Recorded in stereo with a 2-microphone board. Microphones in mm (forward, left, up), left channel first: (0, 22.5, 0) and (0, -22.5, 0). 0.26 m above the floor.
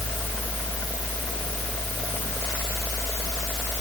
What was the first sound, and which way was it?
Only background noise.